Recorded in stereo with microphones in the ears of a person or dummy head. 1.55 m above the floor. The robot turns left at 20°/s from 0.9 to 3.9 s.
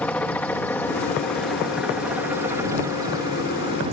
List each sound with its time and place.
0.0 s a helicopter: 5° left (ahead or behind); by 3.9 s 35° right (ahead or behind)